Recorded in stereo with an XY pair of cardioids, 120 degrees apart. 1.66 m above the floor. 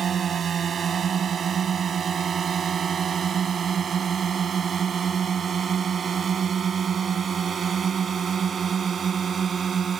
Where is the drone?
45° right; by 10.0 s 40° right.